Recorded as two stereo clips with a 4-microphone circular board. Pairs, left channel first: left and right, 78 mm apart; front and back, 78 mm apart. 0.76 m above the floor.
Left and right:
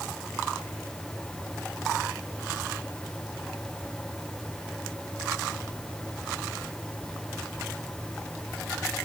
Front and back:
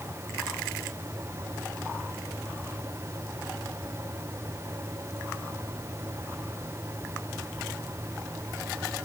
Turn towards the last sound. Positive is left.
No sound to turn to.